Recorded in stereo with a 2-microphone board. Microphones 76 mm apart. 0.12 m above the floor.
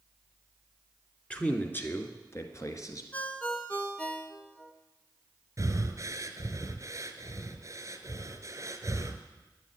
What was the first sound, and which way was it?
A man speaking, 15° left (ahead or behind).